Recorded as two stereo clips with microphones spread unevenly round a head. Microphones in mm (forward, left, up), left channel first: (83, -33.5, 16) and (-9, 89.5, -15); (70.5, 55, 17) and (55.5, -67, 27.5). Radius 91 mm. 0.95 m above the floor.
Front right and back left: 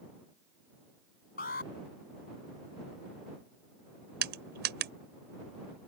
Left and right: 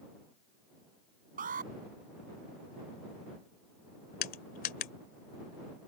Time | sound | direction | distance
1.4 | an alarm | 95° right | ?
4.2 | crushing | 110° left | ?